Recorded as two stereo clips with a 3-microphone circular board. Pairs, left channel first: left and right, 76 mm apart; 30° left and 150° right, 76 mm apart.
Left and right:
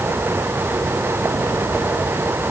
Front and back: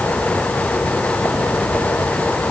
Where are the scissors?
No scissors in this recording.